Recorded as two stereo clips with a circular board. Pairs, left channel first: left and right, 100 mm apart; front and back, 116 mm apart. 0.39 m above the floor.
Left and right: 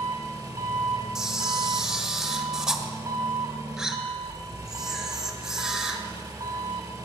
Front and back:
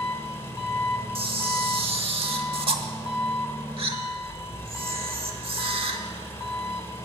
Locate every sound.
0.0 s an engine running: 60° right, 1.1 m
1.1 s a camera shutter: 170° right, 0.9 m